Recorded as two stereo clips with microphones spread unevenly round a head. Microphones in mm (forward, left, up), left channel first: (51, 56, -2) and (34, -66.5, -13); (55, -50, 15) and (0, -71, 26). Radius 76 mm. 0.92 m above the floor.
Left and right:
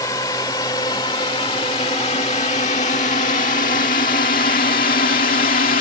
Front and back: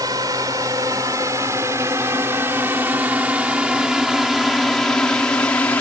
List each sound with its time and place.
0.0 s a drone: 150° left; by 5.8 s 90° left